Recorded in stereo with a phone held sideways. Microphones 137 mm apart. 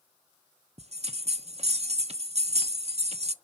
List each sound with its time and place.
0.8 s a bell: 50° right (ahead or behind), 0.6 m